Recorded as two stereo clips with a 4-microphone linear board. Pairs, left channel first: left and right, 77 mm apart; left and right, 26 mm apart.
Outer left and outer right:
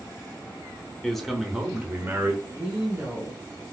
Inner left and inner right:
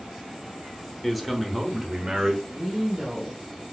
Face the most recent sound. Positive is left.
turn(degrees=-25)  # may be behind; listen again after turning